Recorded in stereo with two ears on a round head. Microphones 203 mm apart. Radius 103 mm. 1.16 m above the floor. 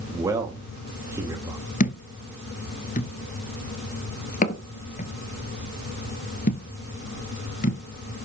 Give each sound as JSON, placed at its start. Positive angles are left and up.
{"t": 0.1, "sound": "a man speaking", "side_deg": -15, "distance_m": 2.5}
{"t": 1.8, "sound": "a thud", "side_deg": 35, "distance_m": 1.3}